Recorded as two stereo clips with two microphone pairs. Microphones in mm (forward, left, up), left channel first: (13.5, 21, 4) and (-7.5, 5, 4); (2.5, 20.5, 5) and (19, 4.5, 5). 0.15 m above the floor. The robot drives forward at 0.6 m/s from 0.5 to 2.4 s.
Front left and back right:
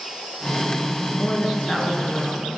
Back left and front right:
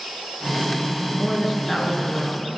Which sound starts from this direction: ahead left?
A woman speaking, at 1.1 s.